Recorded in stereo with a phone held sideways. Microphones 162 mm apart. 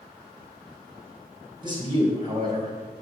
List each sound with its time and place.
1.6 s a man speaking: 30° right (ahead or behind), 4 m